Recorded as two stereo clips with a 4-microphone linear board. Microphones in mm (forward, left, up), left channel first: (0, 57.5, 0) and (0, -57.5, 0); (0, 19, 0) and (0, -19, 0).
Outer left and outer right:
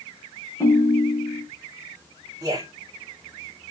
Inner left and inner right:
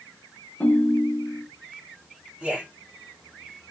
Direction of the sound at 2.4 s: 35° right (ahead or behind).